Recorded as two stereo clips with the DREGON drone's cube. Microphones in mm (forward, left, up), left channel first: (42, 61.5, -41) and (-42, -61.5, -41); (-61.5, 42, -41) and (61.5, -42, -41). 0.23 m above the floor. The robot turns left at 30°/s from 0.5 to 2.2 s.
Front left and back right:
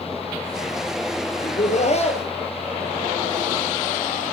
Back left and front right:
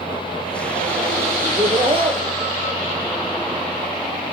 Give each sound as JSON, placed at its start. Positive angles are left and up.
{"t": 1.4, "sound": "laughter", "azimuth_deg": 30, "distance_m": 3.5}